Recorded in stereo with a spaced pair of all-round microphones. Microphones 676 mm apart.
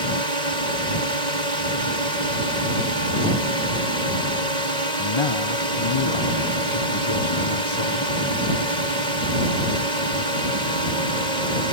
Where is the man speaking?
45° left (ahead or behind).